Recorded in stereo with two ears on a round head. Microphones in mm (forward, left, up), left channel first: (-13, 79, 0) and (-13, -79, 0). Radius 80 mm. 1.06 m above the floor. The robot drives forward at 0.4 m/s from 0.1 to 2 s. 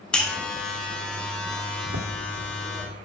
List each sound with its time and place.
0.1 s a buzzer: 5° left (ahead or behind), 1.9 m
1.8 s footsteps: 65° right (ahead or behind), 2.5 m; by 2.9 s 70° right (ahead or behind), 4 m